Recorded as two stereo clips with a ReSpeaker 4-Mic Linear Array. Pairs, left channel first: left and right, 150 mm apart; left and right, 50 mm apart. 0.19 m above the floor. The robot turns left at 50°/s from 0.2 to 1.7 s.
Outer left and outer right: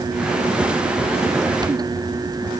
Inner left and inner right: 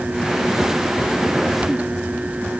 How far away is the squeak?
No squeak in this recording.